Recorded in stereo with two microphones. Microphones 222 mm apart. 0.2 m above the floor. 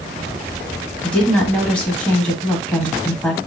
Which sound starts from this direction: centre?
A woman speaking, at 1.0 s.